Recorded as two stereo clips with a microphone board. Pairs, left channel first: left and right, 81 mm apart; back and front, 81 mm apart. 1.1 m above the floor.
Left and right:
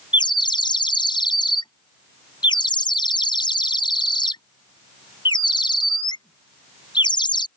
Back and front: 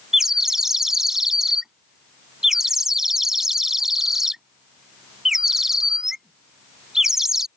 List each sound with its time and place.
0.1 s a bird: 85° left